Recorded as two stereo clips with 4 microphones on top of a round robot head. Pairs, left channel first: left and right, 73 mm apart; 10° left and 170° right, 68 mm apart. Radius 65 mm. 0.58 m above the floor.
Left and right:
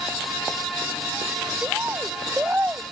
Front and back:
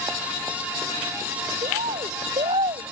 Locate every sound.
1.6 s a bird: 165° right